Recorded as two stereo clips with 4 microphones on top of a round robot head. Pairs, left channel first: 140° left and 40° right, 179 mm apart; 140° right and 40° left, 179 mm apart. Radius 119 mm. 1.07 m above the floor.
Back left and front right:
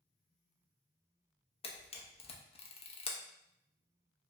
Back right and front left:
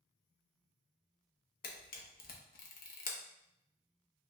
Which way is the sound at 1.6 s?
165° right.